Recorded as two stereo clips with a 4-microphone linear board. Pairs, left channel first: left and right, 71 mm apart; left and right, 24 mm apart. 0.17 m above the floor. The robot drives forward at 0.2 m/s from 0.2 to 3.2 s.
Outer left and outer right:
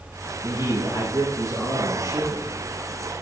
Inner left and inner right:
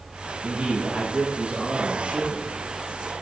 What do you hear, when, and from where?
0.4 s a man speaking: 55° right (ahead or behind), 4.5 m; by 2.5 s 50° right (ahead or behind), 5 m